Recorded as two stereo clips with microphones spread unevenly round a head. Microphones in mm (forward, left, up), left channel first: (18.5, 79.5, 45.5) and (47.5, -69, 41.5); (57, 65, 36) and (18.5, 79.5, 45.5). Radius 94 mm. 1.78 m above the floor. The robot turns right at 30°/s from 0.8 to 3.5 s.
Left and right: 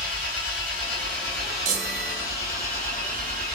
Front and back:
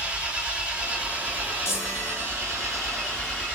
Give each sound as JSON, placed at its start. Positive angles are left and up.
{"t": 0.0, "sound": "an engine running", "azimuth_deg": 110, "distance_m": 2.5}
{"t": 1.6, "sound": "a chime", "azimuth_deg": -50, "distance_m": 0.9}